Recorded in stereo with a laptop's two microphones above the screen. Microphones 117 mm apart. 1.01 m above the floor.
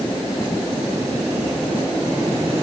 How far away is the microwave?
No microwave in this recording.